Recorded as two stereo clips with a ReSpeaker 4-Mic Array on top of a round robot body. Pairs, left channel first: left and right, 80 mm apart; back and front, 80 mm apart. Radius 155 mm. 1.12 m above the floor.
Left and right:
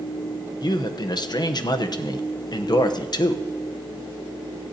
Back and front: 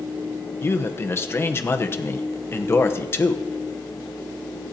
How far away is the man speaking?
About 1.1 m.